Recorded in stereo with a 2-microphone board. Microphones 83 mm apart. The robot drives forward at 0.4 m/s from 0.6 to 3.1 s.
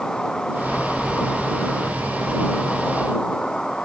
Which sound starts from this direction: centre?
An insect, at 0.0 s.